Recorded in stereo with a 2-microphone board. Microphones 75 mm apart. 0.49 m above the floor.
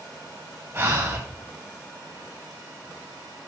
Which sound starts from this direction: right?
Breathing, at 0.7 s.